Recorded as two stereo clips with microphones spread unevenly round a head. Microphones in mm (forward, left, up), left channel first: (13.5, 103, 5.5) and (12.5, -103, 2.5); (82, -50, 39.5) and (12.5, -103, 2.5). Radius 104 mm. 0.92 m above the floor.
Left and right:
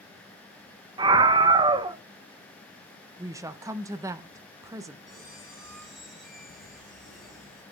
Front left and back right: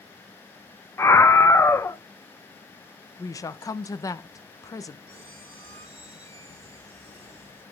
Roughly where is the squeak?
Behind.